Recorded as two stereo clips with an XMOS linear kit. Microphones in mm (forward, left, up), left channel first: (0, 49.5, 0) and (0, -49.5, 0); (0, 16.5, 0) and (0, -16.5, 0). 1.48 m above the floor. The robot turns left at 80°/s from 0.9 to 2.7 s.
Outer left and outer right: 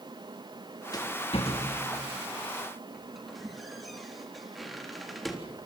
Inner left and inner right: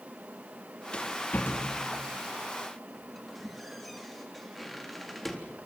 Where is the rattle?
35° left (ahead or behind), 3.5 m; by 5.4 s centre (ahead or behind), 3.5 m.